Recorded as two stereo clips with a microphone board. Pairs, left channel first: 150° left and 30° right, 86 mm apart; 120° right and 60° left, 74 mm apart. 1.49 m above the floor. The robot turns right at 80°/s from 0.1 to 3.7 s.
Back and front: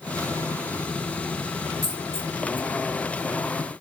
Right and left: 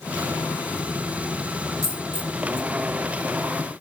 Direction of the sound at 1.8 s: 85° left.